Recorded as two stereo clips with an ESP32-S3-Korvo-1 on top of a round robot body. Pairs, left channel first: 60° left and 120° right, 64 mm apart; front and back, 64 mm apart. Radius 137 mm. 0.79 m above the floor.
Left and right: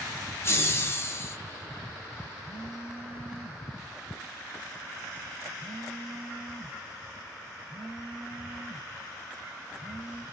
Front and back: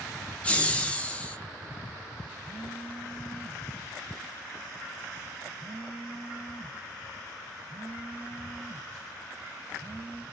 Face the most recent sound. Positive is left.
turn(degrees=-170)